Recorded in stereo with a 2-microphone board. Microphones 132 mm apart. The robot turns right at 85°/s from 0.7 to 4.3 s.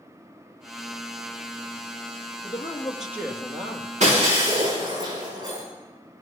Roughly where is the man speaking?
Behind left.